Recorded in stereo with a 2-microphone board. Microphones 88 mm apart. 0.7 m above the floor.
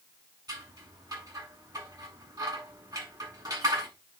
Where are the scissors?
45° right (ahead or behind), 7.5 m.